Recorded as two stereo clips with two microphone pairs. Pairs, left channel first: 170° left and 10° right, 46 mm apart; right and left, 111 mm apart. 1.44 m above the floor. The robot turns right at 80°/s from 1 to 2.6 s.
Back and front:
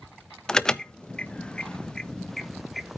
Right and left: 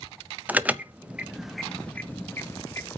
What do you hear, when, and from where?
0.5 s an alarm: 130° left, 0.5 m; by 3.0 s 100° right, 0.5 m